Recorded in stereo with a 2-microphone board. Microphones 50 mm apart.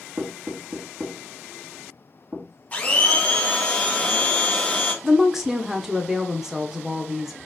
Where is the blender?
30° left (ahead or behind), 0.9 m.